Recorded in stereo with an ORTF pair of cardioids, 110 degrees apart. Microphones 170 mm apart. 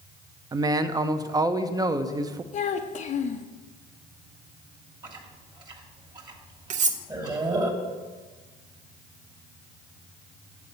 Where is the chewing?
25° right, 1.4 m.